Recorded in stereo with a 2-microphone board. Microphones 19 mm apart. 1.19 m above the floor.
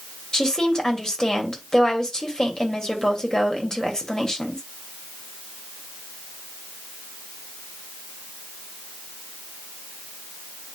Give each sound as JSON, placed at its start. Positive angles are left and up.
{"t": 0.3, "sound": "a woman speaking", "side_deg": 35, "distance_m": 2.5}